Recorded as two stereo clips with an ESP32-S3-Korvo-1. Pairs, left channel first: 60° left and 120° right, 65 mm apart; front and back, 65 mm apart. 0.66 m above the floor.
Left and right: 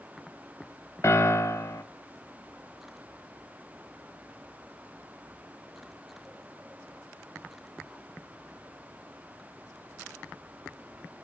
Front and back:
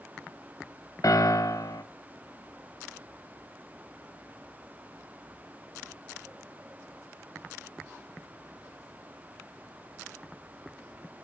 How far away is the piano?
About 0.8 m.